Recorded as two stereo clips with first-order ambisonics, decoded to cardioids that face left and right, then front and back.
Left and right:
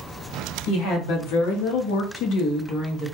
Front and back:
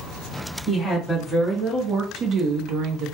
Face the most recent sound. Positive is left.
turn(degrees=170)